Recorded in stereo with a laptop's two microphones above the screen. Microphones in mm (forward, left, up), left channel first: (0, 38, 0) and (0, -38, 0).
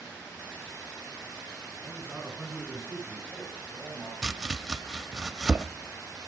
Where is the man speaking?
15° right (ahead or behind), 9 m; by 4.1 s 5° left (ahead or behind), 7 m.